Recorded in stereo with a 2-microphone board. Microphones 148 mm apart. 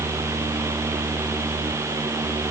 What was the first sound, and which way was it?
Only background noise.